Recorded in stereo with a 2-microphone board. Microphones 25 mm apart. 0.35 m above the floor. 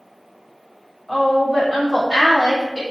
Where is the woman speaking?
10° right (ahead or behind), 1.6 m; by 2.8 s 30° left (ahead or behind), 1.6 m.